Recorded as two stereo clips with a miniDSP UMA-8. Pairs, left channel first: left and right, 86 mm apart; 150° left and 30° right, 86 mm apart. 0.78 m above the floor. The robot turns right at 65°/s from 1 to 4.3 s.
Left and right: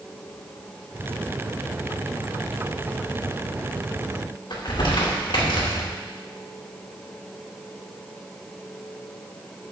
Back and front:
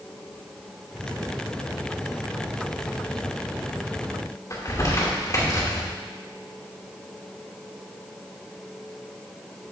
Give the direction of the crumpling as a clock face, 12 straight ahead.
9 o'clock.